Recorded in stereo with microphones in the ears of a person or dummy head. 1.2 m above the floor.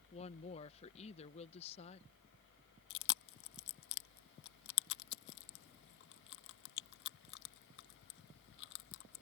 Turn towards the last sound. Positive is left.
turn(degrees=60)  # may be behind; listen again after turning